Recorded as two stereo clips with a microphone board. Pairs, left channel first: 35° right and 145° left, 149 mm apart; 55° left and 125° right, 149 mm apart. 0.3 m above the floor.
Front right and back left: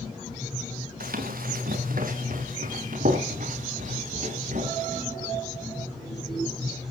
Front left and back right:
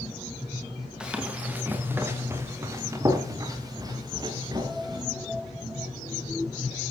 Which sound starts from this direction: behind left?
Running footsteps, at 1.0 s.